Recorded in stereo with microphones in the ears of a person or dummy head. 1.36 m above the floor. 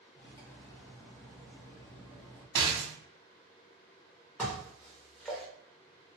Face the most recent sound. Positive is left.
turn(degrees=5)  # may be behind; listen again after turning